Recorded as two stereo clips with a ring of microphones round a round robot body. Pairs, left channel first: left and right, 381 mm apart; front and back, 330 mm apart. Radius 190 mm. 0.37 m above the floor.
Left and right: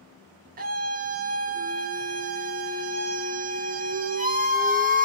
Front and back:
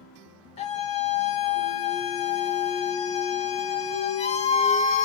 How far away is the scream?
About 0.9 m.